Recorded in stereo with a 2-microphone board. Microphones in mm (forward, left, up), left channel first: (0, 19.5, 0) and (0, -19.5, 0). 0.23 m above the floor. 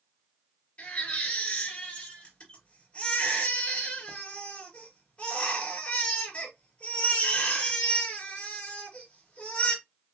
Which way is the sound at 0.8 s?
35° left (ahead or behind).